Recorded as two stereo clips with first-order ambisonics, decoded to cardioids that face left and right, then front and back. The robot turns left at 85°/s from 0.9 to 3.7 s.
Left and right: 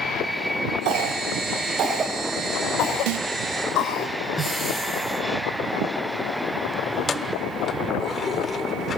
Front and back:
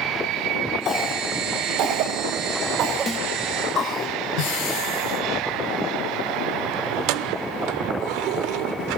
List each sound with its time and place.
0.8 s a cough: 65° right, 2.5 m; by 4.1 s 60° left, 2.5 m
3.1 s a snare drum: 75° right, 0.6 m; by 3.3 s 95° right, 0.6 m
4.4 s breathing: 5° left, 7 m
6.9 s keys jangling: 160° left, 0.9 m